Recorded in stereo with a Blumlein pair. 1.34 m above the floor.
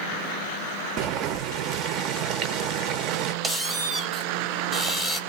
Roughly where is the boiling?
Ahead right.